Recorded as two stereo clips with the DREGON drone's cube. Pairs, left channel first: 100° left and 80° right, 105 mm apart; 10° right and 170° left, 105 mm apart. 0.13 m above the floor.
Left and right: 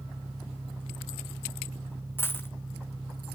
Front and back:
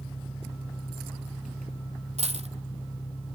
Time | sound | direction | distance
0.0 | an engine running | 5° right | 5.5 m
2.2 | a dropped coin | 170° left | 1.2 m